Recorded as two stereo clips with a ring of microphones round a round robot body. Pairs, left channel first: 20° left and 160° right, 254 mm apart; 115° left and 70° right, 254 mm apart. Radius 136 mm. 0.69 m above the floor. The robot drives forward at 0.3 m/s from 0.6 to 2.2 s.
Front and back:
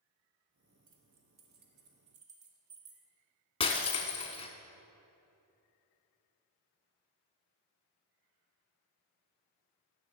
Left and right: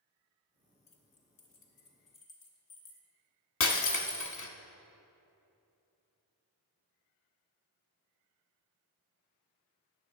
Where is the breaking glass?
85° left, 0.8 m.